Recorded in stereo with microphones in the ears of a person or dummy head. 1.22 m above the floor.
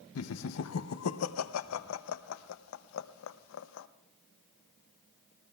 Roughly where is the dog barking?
No dog barking in this recording.